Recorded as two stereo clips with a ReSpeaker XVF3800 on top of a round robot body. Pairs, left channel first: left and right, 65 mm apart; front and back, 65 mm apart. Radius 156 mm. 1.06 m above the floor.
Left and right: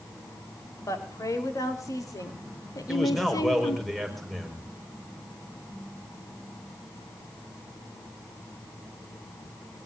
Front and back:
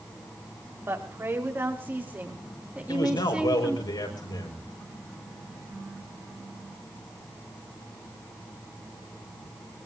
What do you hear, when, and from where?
0.9 s a woman speaking: 125° left, 4 m; by 3.9 s 100° left, 2.5 m
2.9 s a man speaking: straight ahead, 5 m